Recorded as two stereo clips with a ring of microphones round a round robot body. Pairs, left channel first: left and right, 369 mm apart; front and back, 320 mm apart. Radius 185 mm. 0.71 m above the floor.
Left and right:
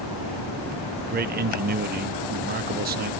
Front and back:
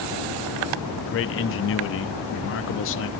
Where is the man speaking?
35° right, 0.7 m.